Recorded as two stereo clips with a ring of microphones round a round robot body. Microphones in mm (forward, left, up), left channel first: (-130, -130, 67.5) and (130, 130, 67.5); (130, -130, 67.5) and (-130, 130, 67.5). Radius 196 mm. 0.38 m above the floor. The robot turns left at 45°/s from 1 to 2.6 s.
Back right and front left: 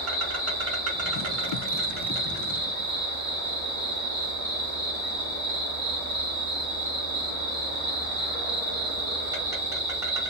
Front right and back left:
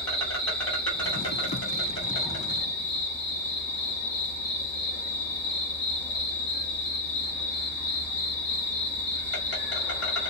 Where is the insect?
40° left, 1.8 m; by 10.3 s 30° right, 1.8 m.